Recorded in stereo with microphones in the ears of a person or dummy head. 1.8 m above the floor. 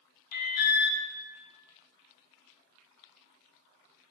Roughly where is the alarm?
Left.